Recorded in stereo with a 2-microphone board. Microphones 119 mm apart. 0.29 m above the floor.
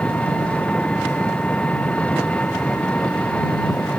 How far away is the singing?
I don't hear singing.